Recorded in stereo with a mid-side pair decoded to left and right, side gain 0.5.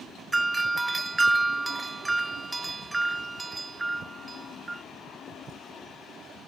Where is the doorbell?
20° right, 1.1 m.